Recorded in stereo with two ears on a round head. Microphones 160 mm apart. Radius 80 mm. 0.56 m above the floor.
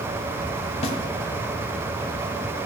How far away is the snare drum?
About 1.0 m.